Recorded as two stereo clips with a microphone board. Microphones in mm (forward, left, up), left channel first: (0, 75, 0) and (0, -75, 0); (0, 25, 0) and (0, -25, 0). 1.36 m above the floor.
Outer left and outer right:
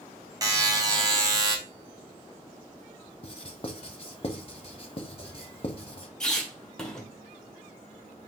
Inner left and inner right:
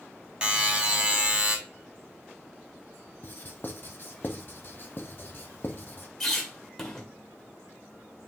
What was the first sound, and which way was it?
A buzzer, 25° right (ahead or behind).